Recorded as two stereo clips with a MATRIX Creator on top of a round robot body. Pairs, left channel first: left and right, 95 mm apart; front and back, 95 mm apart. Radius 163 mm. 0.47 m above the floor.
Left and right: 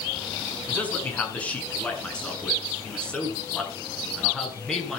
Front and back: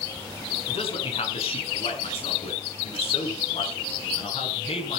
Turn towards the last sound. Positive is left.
turn(degrees=5)